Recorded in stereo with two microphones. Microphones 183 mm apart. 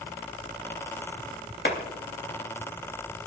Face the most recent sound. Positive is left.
turn(degrees=85)